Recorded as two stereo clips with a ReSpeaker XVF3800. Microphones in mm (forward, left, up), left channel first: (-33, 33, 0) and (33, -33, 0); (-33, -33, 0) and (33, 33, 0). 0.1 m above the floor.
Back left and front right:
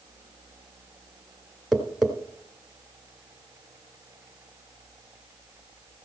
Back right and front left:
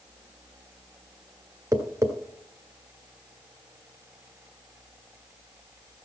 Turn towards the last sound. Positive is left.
turn(degrees=40)